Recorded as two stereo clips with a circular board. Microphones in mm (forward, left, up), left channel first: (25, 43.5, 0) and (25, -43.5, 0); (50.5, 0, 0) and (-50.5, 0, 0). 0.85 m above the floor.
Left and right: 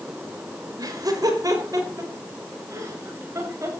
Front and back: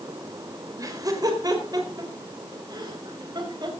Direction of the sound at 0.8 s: 130° right.